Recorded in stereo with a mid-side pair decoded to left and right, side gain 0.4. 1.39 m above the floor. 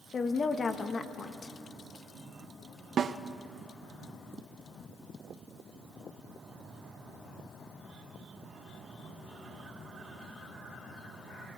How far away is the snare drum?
About 0.9 m.